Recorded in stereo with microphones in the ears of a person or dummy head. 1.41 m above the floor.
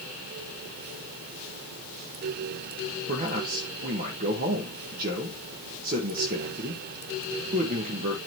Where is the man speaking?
50° right (ahead or behind), 1.6 m.